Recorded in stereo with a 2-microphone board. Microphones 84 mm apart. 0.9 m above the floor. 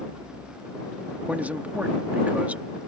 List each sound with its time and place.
1.3 s a man speaking: 20° right (ahead or behind)